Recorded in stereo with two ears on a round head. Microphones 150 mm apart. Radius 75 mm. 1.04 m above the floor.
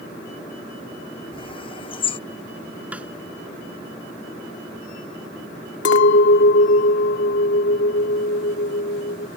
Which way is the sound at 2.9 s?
10° right (ahead or behind).